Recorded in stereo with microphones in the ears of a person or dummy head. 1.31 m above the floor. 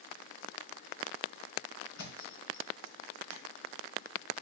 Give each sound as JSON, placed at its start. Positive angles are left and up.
{"t": 2.0, "sound": "a thud", "side_deg": 65, "distance_m": 2.5}